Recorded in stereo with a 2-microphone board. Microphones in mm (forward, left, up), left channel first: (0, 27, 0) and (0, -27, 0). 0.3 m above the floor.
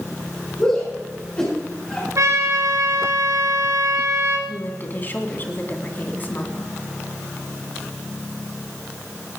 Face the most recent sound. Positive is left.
turn(degrees=40)  # may be behind; listen again after turning